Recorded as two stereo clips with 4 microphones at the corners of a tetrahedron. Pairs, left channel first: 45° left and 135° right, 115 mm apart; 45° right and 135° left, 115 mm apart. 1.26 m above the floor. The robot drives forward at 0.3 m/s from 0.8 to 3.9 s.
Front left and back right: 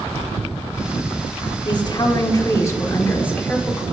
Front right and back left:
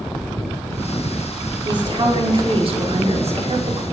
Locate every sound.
1.6 s a woman speaking: 90° left, 1.1 m; by 3.8 s 125° left, 1.3 m